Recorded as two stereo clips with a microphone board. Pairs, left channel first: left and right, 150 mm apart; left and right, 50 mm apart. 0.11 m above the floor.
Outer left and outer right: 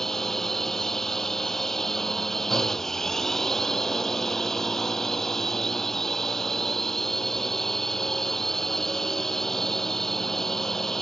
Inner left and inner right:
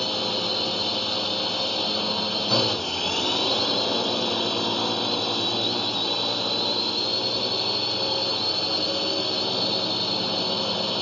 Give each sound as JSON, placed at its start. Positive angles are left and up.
{"t": 0.0, "sound": "a drone", "side_deg": 0}